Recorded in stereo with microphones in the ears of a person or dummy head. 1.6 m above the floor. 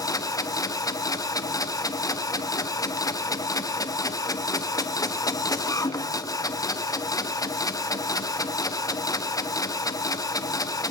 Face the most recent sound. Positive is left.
turn(degrees=10)  # may be behind; listen again after turning